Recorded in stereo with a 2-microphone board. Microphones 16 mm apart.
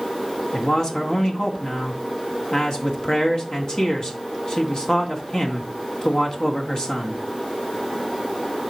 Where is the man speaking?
60° left (ahead or behind), 1.9 m.